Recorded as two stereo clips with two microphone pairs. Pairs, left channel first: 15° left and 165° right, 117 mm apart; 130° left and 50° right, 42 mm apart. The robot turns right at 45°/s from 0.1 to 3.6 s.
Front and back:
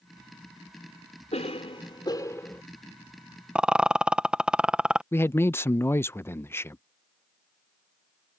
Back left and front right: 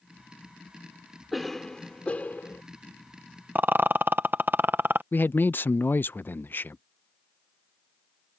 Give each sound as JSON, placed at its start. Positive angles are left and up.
{"t": 1.3, "sound": "a cough", "azimuth_deg": 35}
{"t": 3.5, "sound": "a rattle", "azimuth_deg": -85}
{"t": 5.1, "sound": "a man speaking", "azimuth_deg": 90}